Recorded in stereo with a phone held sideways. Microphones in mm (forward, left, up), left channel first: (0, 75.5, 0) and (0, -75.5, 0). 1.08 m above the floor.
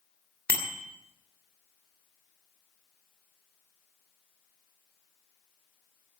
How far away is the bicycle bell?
About 2.5 m.